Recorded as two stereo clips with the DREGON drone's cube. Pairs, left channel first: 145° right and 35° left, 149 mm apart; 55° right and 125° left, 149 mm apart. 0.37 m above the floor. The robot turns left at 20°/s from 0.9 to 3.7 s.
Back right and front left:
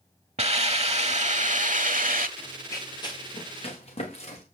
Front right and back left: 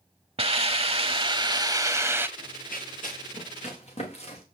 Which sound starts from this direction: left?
A hiss, at 0.4 s.